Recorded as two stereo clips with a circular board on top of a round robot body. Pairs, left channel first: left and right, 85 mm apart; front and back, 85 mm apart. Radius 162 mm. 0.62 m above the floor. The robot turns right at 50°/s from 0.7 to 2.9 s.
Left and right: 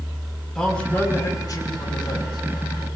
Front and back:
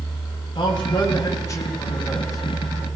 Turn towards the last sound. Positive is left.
turn(degrees=120)